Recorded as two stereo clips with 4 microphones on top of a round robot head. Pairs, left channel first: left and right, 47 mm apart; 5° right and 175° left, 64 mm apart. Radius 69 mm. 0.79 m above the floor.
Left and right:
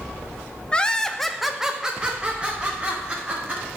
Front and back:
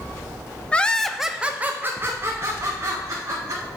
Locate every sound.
0.7 s laughter: 45° left, 0.6 m; by 3.6 s 150° right, 1.5 m